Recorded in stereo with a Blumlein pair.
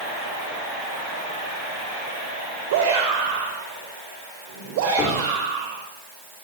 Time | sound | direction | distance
2.7 | a shout | 55° right | 5.5 m
5.0 | a cupboard door | 25° left | 5 m